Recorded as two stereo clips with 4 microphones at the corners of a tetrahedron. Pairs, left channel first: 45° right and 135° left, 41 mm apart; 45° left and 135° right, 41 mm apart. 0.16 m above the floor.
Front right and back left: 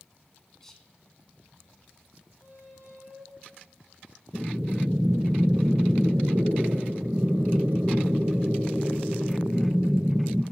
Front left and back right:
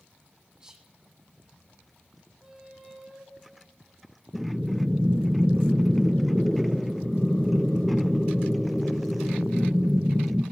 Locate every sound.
0.6 s whispering: 100° right, 1.3 m
2.4 s a squeak: 155° left, 3 m
4.3 s breathing: 105° left, 0.6 m